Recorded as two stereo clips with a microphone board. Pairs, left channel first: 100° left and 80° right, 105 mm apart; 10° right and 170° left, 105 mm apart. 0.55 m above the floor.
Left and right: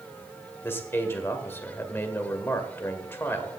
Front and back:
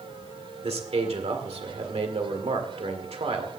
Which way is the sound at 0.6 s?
165° left.